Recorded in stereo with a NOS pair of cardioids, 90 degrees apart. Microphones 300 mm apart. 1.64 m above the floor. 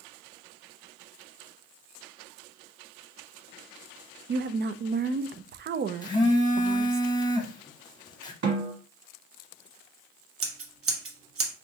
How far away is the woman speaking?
About 0.5 m.